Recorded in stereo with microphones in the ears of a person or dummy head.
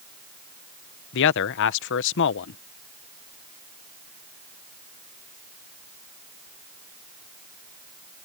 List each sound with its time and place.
1.1 s a man speaking: 60° left (ahead or behind)